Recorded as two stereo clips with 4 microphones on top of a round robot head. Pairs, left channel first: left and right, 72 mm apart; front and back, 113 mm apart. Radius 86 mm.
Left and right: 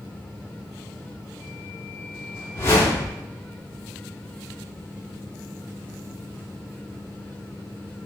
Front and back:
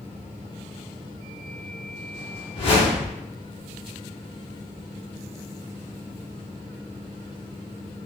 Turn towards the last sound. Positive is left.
turn(degrees=40)